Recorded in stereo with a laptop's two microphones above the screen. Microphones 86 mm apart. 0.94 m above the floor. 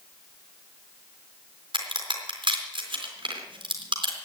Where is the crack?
70° right (ahead or behind), 3.5 m.